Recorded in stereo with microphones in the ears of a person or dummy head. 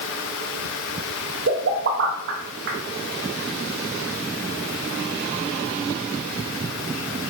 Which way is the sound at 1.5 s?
60° right (ahead or behind).